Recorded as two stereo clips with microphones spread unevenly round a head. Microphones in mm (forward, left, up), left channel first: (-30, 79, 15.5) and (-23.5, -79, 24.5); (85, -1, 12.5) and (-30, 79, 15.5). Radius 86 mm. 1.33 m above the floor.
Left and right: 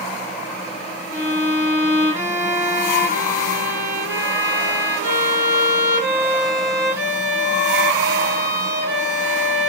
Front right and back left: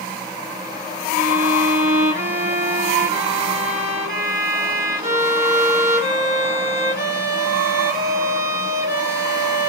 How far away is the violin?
About 2.5 m.